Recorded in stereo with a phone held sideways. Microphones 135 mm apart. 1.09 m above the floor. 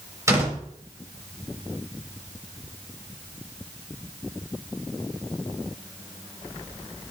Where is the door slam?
25° right (ahead or behind), 4 m.